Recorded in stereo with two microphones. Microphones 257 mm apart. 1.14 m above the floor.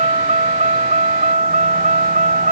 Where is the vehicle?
25° right (ahead or behind); by 2.5 s 30° right (ahead or behind).